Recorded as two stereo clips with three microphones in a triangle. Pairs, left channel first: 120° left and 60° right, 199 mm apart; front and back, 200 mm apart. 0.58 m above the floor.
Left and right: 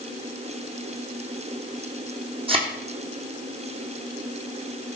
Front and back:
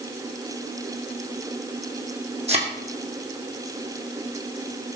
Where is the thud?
120° right, 2 m.